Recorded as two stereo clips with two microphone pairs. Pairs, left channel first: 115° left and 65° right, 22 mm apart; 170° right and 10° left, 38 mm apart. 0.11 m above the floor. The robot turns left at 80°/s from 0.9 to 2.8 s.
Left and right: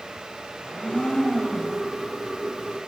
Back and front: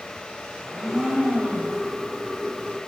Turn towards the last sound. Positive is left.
turn(degrees=-45)